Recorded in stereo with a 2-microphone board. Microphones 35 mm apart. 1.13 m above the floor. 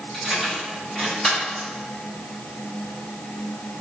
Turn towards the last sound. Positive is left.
turn(degrees=30)  # may be behind; listen again after turning